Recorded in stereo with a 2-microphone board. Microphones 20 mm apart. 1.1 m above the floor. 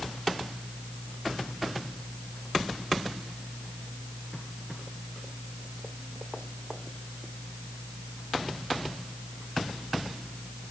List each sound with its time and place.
Only background noise.